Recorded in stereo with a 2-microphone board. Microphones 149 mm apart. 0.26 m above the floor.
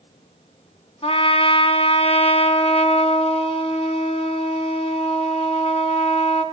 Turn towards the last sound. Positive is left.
turn(degrees=40)  # may be behind; listen again after turning